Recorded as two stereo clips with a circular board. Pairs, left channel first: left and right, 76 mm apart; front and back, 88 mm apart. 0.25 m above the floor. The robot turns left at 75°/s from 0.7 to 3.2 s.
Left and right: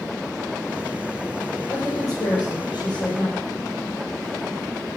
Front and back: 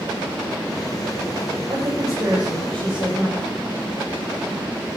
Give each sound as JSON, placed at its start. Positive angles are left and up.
{"t": 1.7, "sound": "a woman speaking", "azimuth_deg": 160, "distance_m": 6.0}